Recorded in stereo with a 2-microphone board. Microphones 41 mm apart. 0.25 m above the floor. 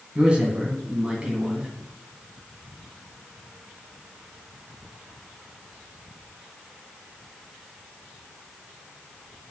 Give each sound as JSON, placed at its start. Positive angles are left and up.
{"t": 0.1, "sound": "a man speaking", "side_deg": -30, "distance_m": 2.0}